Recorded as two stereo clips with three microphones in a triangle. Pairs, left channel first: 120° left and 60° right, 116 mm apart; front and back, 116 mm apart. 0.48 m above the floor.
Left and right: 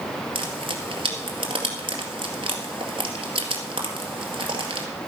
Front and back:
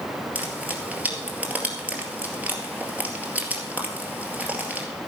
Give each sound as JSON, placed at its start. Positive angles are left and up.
{"t": 0.3, "sound": "frying", "azimuth_deg": -105, "distance_m": 2.0}